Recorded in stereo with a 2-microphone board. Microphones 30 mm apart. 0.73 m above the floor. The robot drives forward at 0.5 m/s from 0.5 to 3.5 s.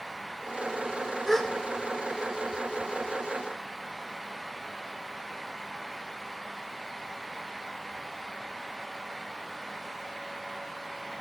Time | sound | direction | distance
1.3 | a gasp | 10° left (ahead or behind) | 1.1 m